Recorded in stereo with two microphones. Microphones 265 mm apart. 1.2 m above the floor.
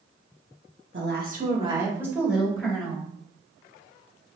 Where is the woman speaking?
50° right (ahead or behind), 1.1 m; by 3.1 s 5° left (ahead or behind), 2.5 m.